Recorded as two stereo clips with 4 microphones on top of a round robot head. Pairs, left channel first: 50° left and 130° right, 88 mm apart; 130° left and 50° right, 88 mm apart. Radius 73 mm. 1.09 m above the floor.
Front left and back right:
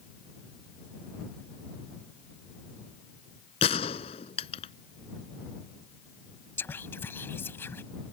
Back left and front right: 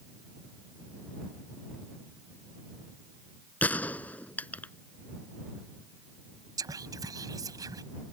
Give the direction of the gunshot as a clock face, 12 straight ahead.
10 o'clock.